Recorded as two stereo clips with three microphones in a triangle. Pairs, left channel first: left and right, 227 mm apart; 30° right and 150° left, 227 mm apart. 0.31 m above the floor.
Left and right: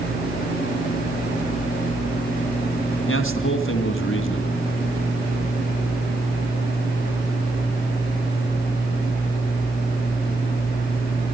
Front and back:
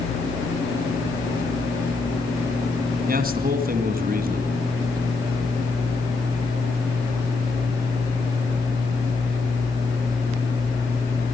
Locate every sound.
3.1 s a man speaking: 105° left, 2 m